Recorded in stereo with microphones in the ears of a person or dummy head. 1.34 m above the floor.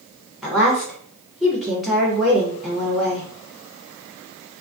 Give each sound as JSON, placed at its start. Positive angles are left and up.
{"t": 0.4, "sound": "a woman speaking", "side_deg": 0, "distance_m": 1.0}